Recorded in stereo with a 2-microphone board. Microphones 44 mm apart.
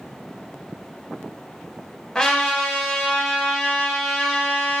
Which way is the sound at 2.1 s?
10° left (ahead or behind).